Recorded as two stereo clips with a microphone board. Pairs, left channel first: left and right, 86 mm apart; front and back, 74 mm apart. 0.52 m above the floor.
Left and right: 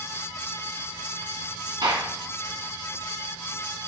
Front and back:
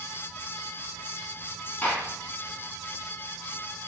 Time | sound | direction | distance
1.8 | a gunshot | 65° right | 2.5 m